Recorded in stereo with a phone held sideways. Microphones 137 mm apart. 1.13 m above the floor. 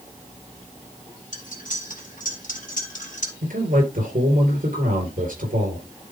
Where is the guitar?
No guitar in this recording.